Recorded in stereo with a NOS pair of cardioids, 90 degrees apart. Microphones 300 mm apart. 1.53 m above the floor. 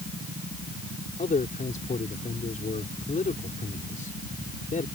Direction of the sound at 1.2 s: 25° left.